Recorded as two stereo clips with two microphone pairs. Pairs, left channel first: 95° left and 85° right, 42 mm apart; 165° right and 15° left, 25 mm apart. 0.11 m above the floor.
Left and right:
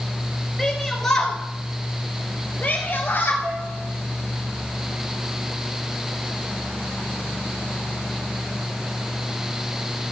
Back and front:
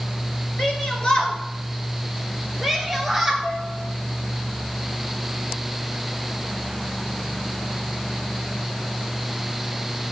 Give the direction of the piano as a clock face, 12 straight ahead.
3 o'clock.